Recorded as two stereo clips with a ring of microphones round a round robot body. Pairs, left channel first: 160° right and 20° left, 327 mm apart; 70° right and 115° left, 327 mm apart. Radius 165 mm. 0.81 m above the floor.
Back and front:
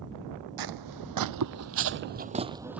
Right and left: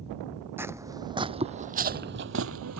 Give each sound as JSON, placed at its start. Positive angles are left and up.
{"t": 0.6, "sound": "footsteps", "azimuth_deg": 30}